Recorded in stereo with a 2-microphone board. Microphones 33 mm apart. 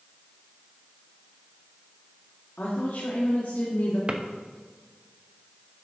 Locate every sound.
2.6 s a woman speaking: 65° left (ahead or behind), 1.9 m
4.1 s a drawer: 30° right (ahead or behind), 0.7 m